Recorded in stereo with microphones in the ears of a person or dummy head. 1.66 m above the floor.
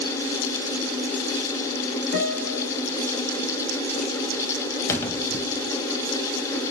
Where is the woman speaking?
I don't hear a woman speaking.